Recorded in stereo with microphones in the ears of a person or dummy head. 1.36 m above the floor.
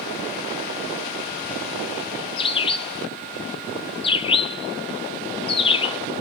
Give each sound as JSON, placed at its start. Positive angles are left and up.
{"t": 2.4, "sound": "a bird", "side_deg": 25, "distance_m": 0.6}